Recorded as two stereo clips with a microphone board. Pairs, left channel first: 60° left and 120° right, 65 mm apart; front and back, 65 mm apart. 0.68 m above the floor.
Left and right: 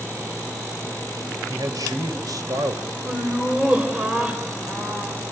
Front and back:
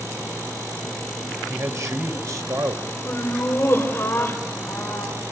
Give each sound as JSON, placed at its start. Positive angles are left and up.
{"t": 1.5, "sound": "a man speaking", "azimuth_deg": -140, "distance_m": 2.5}
{"t": 3.0, "sound": "laughter", "azimuth_deg": -50, "distance_m": 3.5}